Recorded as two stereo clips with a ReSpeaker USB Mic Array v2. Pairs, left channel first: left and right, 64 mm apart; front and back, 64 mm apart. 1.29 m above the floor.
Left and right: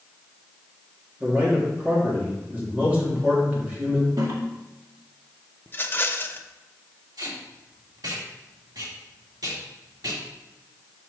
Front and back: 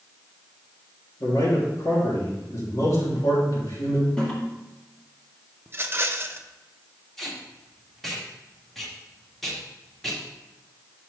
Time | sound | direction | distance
1.2 | a man speaking | 25° right | 3.5 m
4.2 | a toilet flushing | 75° right | 1.9 m
5.7 | a rattle | 135° left | 0.5 m
7.2 | tape being pulled | 85° right | 1.8 m